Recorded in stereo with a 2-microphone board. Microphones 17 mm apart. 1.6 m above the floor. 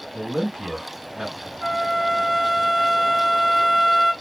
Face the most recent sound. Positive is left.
turn(degrees=-25)  # may be behind; listen again after turning